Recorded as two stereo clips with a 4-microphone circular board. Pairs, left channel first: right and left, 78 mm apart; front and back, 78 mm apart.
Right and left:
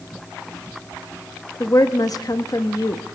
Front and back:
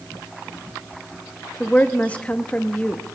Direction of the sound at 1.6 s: 70° right.